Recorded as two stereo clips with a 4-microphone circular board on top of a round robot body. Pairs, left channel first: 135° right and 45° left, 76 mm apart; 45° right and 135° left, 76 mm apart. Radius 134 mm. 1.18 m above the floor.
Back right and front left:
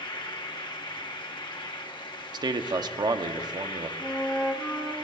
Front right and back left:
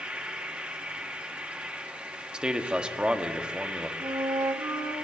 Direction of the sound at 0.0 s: 150° right.